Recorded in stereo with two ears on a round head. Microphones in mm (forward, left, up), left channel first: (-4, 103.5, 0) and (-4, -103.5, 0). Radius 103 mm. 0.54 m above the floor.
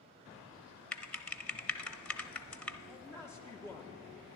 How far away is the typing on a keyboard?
About 0.5 m.